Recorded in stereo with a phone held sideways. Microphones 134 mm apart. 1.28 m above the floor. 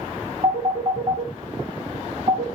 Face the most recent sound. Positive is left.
turn(degrees=-60)  # may be behind; listen again after turning